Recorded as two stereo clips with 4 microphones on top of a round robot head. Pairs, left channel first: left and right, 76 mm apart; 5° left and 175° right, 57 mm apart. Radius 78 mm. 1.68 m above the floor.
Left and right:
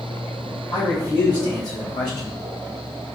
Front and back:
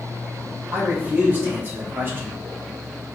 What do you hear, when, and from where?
0.7 s a man speaking: 130° left, 2.5 m; by 2.4 s 135° left, 1.0 m